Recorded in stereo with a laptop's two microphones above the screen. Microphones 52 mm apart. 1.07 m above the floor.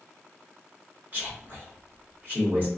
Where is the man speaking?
35° right (ahead or behind), 1.5 m.